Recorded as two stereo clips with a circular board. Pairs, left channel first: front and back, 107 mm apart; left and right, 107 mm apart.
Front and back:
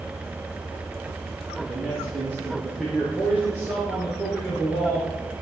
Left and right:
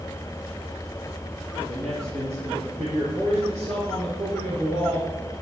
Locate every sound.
1.7 s a man speaking: 100° right, 7.5 m; by 5.1 s 95° right, 6 m